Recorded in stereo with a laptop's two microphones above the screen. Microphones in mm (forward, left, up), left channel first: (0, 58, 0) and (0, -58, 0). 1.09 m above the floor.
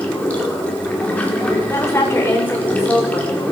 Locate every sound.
0.0 s running water: 10° left (ahead or behind), 1.8 m
1.7 s a woman speaking: 25° left (ahead or behind), 4.5 m